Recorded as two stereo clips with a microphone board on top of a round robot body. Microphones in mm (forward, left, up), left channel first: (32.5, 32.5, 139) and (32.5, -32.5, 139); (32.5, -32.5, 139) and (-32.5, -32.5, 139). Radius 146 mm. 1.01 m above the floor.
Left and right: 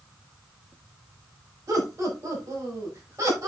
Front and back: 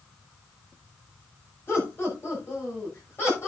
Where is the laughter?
50° right, 6.5 m.